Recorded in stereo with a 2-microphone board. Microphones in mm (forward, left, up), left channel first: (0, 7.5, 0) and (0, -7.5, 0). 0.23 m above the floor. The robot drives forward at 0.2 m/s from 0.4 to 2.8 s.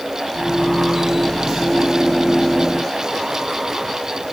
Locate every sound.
Only background noise.